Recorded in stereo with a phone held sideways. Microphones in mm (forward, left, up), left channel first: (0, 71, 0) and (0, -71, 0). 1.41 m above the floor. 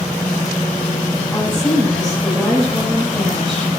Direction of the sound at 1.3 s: 5° left (ahead or behind).